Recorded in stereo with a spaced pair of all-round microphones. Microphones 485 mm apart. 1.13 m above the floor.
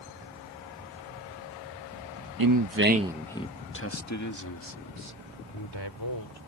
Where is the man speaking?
50° right (ahead or behind); by 6.4 s 55° left (ahead or behind).